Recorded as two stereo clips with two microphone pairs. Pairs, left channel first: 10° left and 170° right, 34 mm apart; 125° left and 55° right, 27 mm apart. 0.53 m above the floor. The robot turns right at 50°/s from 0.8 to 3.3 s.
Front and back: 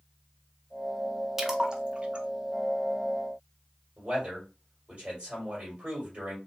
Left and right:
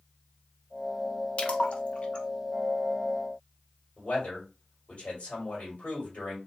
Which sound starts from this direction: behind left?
A man speaking, at 4.0 s.